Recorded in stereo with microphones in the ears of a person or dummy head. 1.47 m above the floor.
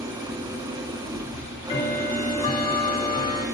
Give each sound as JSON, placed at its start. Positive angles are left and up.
{"t": 0.0, "sound": "an engine running", "side_deg": -15, "distance_m": 1.4}
{"t": 1.3, "sound": "ticking", "side_deg": 25, "distance_m": 1.1}